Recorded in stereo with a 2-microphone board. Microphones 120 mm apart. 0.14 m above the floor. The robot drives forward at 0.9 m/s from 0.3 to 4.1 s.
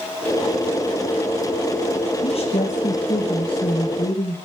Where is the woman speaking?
55° left (ahead or behind), 4 m; by 4.4 s 40° left (ahead or behind), 5 m.